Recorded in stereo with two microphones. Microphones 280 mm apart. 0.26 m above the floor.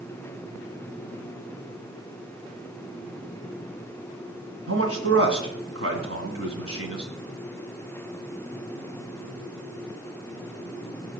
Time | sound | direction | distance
4.7 | a man speaking | 50° right (ahead or behind) | 2 m